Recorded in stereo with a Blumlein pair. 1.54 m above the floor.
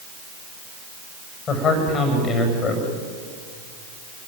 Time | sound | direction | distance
1.5 | a man speaking | 25° left | 7 m